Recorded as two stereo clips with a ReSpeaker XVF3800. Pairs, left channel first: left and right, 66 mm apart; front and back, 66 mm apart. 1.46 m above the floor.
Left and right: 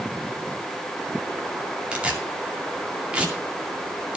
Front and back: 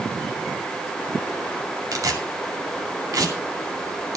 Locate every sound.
1.9 s tearing paper: 165° right, 2 m